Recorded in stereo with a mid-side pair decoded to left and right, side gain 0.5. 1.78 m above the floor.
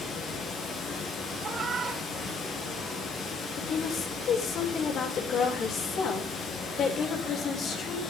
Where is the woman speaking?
60° left, 7 m.